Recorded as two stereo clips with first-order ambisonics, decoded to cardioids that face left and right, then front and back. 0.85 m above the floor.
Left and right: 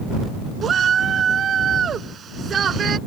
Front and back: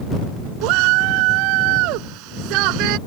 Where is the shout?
155° right.